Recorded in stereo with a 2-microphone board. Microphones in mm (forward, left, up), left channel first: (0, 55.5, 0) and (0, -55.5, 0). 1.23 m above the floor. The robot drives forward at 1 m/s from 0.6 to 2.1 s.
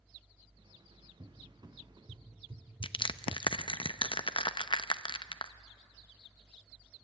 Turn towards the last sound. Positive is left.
turn(degrees=50)  # may be behind; listen again after turning